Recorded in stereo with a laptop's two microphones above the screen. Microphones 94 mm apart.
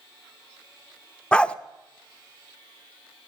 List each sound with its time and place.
1.3 s a dog barking: 10° left (ahead or behind), 0.5 m